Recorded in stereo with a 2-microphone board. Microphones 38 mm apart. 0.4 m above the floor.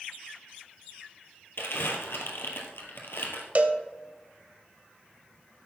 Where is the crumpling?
85° left, 2 m.